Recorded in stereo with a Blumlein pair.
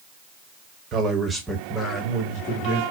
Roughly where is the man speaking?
Ahead right.